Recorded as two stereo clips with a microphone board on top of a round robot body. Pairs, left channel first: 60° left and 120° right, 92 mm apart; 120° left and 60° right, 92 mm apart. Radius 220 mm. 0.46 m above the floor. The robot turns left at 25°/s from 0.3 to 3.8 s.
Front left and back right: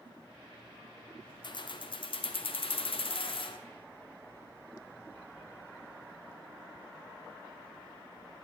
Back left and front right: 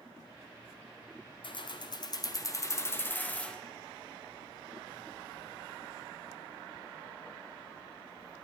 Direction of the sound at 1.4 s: 95° left.